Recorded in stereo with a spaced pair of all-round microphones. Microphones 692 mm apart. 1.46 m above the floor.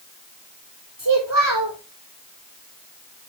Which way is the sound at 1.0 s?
25° right (ahead or behind).